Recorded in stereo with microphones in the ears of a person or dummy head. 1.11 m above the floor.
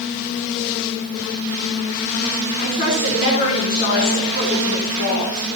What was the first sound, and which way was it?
A woman speaking, 40° left (ahead or behind).